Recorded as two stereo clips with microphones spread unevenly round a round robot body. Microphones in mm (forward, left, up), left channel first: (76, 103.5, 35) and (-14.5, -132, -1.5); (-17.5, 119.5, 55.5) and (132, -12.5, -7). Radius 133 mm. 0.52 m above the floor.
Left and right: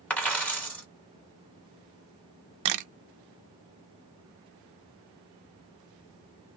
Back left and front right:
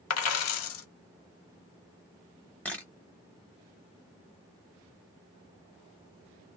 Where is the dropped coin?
155° left, 0.9 m.